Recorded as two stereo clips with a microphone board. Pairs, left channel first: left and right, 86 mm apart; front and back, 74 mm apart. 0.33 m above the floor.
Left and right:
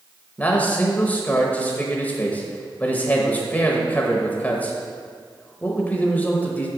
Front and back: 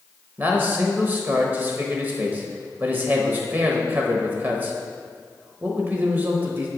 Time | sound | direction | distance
0.4 | a man speaking | 145° left | 1.0 m